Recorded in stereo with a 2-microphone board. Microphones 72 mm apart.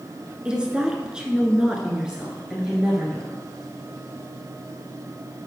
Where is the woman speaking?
10° right (ahead or behind), 1.2 m; by 3.4 s 5° right (ahead or behind), 1.8 m.